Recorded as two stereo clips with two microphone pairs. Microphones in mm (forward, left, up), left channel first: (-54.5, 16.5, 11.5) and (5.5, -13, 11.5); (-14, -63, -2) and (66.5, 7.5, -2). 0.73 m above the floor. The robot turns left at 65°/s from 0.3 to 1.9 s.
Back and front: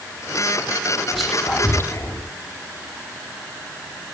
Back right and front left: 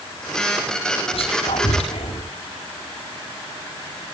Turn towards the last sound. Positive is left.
turn(degrees=-160)